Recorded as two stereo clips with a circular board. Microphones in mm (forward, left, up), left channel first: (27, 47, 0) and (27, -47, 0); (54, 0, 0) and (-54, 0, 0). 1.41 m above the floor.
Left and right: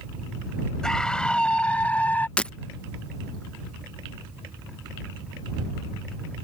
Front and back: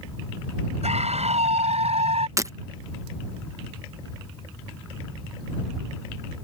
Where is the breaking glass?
155° left.